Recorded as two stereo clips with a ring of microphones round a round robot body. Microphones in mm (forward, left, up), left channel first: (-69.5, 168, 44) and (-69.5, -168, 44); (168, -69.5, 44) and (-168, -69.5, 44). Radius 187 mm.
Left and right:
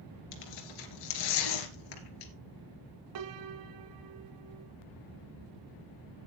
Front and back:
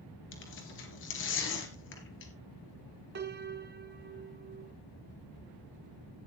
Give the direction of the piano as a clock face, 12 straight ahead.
4 o'clock.